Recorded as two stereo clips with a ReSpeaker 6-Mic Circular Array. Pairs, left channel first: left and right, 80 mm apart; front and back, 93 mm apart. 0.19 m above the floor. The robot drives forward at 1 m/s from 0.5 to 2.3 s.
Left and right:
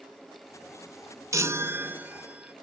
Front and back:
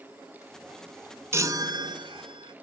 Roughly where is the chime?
Behind right.